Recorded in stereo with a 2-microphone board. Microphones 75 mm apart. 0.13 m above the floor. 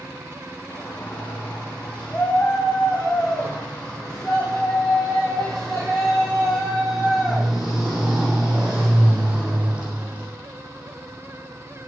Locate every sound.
0.7 s a shout: 20° left (ahead or behind), 8 m; by 10.3 s 20° right (ahead or behind), 5.5 m